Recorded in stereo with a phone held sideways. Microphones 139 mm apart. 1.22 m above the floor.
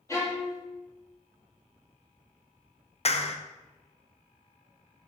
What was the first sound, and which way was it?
A violin, 20° left (ahead or behind).